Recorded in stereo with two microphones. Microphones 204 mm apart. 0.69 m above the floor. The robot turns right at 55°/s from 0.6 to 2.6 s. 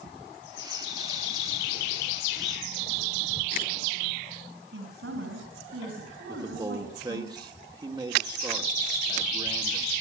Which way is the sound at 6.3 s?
20° right (ahead or behind).